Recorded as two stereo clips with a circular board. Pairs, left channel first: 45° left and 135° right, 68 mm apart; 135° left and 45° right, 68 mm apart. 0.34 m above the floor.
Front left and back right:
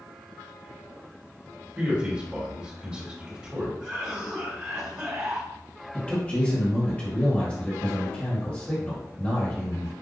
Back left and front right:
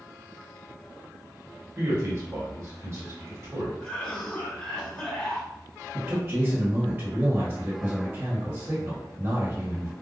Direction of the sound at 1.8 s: 65° right.